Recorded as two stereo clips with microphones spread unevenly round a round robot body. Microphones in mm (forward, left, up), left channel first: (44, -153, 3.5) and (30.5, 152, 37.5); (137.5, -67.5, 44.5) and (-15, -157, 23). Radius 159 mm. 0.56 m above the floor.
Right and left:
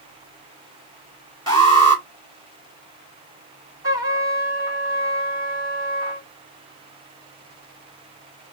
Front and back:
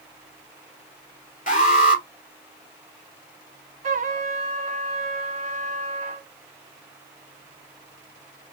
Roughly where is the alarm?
Ahead.